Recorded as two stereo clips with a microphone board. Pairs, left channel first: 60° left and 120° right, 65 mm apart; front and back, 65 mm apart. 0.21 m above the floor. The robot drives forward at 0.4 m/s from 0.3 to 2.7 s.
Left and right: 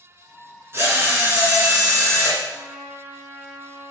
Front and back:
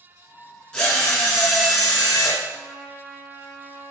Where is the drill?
75° right, 2.5 m; by 2.4 s 95° right, 2.5 m.